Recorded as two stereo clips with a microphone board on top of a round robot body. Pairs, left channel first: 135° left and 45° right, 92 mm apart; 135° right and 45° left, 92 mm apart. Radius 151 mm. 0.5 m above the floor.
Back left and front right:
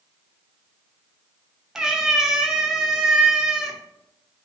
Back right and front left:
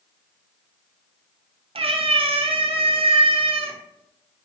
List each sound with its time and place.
1.8 s a cat meowing: 40° left, 0.5 m